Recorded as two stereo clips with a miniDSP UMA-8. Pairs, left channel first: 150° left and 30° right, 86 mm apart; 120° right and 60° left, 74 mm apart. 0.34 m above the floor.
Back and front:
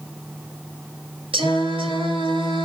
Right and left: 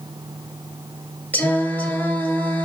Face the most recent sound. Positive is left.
turn(degrees=-50)